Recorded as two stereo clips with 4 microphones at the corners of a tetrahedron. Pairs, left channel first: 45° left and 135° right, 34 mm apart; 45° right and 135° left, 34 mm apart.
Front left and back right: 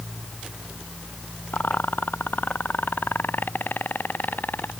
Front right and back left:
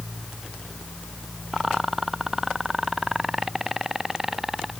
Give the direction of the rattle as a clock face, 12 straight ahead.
10 o'clock.